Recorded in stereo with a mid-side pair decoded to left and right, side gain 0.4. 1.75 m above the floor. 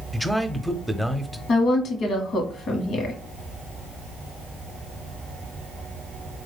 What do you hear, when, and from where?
0.1 s a man speaking: 5° left, 0.7 m
1.5 s a woman speaking: 70° left, 1.0 m